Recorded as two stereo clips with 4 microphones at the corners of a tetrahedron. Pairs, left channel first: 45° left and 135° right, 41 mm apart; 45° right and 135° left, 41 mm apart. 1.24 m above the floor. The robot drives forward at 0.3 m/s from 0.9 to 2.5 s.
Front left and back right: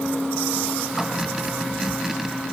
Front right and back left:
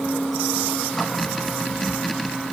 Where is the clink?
I don't hear a clink.